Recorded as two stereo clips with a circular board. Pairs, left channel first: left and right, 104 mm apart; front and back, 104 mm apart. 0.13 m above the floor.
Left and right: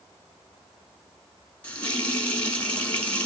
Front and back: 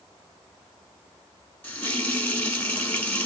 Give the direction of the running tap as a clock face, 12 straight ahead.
11 o'clock.